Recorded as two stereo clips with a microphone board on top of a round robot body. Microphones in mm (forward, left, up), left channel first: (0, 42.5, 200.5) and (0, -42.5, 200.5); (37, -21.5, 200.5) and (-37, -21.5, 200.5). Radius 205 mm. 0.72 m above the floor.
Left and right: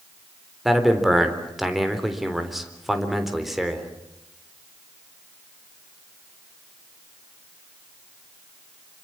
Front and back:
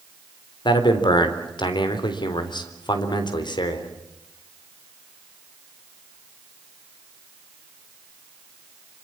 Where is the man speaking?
Straight ahead, 4 m.